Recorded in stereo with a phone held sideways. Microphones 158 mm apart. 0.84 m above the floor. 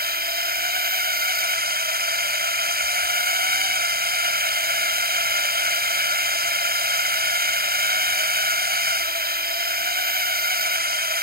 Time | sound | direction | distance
0.0 | a drone | 75° right (ahead or behind) | ?